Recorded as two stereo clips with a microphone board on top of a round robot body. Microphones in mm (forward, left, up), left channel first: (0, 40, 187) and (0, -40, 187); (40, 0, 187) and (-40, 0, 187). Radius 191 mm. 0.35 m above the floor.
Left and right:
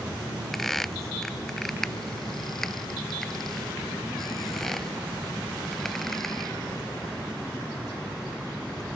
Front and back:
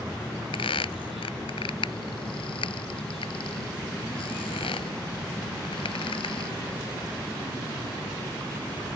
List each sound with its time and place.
0.5 s a squeak: 5° left